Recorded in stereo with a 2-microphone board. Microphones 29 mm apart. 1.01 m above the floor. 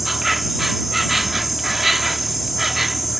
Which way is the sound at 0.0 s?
Centre (ahead or behind).